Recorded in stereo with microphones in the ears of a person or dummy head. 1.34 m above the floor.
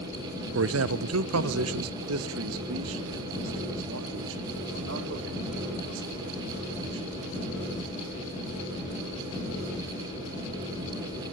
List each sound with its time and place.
0.6 s a man speaking: 65° right (ahead or behind), 0.8 m; by 7.1 s 70° right (ahead or behind), 5 m